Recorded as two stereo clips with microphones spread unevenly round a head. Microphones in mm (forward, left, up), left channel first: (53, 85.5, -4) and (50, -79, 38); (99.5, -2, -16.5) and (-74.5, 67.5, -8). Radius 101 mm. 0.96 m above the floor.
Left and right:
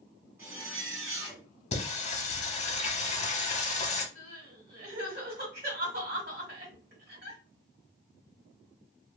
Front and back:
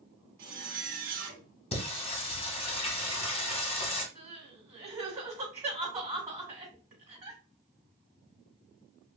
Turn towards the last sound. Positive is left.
turn(degrees=-130)